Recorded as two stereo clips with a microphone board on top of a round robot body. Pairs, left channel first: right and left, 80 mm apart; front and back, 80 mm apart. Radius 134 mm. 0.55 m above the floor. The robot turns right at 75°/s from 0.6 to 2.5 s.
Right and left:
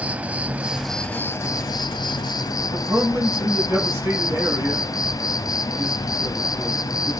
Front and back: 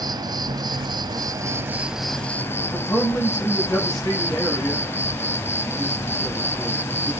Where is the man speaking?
35° left, 6.5 m.